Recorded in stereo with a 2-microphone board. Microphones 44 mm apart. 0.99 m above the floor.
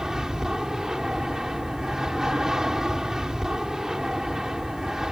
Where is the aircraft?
15° right (ahead or behind).